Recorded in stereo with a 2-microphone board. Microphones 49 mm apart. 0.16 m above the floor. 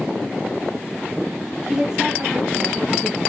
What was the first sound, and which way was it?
A woman speaking, 15° right (ahead or behind).